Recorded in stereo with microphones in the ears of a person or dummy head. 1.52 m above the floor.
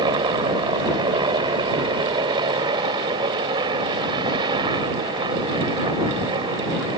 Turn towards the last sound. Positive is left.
turn(degrees=-25)  # may be behind; listen again after turning